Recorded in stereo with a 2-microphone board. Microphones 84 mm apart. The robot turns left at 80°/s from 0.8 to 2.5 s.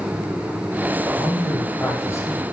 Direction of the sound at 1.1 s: 140° right.